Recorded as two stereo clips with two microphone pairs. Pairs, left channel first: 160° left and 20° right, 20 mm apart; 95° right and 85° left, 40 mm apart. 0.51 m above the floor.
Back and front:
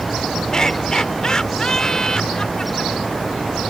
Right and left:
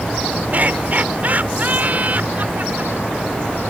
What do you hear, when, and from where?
0.5 s laughter: 115° left